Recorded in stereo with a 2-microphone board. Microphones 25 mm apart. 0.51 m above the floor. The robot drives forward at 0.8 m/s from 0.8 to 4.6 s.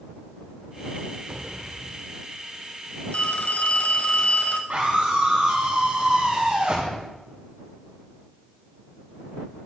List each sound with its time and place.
1.3 s an explosion: 20° right (ahead or behind), 0.8 m; by 2.2 s 10° right (ahead or behind), 1.4 m
3.1 s a phone ringing: 65° left (ahead or behind), 1.7 m; by 4.6 s 70° left (ahead or behind), 1.6 m
4.7 s a scream: 65° right (ahead or behind), 3.5 m